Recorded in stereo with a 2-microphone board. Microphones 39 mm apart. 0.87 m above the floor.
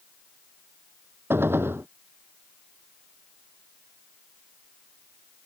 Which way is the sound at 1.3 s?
85° right.